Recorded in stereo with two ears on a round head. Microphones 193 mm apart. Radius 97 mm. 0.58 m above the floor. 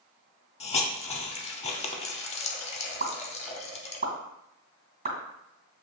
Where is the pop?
45° right (ahead or behind), 2.0 m.